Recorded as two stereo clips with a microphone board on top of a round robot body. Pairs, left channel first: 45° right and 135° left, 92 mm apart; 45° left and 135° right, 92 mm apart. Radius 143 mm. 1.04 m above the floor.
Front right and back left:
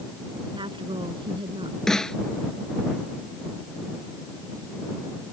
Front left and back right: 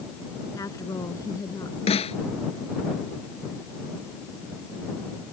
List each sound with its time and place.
0.6 s a woman speaking: 100° left
1.9 s a snare drum: 40° left